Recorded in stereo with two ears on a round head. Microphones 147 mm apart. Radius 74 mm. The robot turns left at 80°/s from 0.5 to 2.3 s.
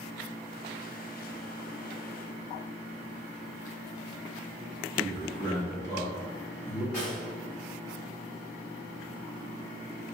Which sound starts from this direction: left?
A man speaking, at 5.0 s.